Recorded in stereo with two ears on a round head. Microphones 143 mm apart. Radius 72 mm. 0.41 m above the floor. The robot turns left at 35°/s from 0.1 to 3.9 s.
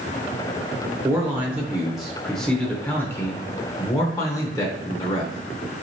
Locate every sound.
1.0 s a man speaking: 15° right (ahead or behind), 0.8 m; by 5.8 s 20° left (ahead or behind), 0.8 m